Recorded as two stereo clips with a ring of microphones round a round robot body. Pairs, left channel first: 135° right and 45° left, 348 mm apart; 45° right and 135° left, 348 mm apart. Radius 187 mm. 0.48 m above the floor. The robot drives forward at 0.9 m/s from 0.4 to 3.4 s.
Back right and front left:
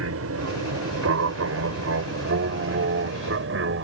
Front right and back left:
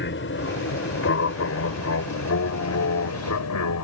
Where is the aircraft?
5° left; by 3.8 s 5° right.